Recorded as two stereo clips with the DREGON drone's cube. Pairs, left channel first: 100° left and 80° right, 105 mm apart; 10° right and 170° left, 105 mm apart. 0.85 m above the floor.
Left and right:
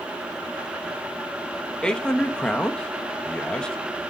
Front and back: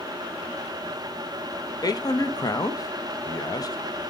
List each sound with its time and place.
1.8 s a man speaking: 20° left, 0.7 m